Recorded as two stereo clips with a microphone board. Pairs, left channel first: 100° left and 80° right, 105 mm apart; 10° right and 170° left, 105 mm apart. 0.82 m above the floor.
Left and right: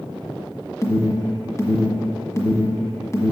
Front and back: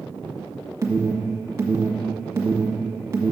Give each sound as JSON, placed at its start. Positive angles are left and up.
{"t": 0.8, "sound": "an alarm", "azimuth_deg": 130, "distance_m": 1.5}